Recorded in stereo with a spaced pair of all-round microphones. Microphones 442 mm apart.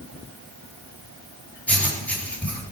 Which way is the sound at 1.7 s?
5° left (ahead or behind).